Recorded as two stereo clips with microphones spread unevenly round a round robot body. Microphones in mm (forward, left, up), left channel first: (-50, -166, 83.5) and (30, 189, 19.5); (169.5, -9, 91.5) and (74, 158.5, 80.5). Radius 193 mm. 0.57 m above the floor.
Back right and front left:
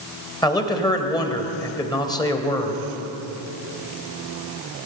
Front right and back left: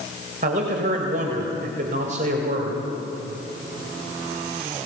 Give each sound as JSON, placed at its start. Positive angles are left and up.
{"t": 0.4, "sound": "a man speaking", "azimuth_deg": 175, "distance_m": 2.5}